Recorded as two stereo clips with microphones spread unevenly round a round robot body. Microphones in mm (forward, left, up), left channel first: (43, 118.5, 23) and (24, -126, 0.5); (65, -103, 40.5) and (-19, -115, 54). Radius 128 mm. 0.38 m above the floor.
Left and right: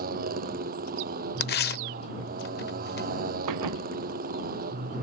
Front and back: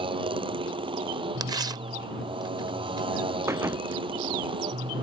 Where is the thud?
115° right.